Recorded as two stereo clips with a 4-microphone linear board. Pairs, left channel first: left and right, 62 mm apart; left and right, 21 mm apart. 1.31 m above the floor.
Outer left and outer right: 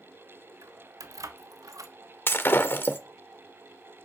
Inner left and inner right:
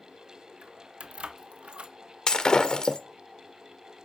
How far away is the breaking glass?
About 1.7 m.